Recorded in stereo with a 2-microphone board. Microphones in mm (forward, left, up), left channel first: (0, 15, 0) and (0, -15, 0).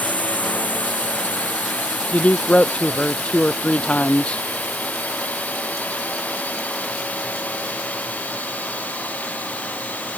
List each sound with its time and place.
0.0 s a drone: 65° left (ahead or behind); by 10.2 s 70° left (ahead or behind)
2.1 s a man speaking: 45° left (ahead or behind)